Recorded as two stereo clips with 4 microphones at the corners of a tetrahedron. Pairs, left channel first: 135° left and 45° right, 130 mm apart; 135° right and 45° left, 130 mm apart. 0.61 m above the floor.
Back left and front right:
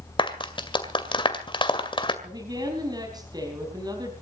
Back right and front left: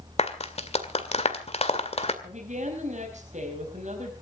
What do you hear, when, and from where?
0.2 s a clap: 175° right, 2 m
2.2 s a woman speaking: 15° left, 4 m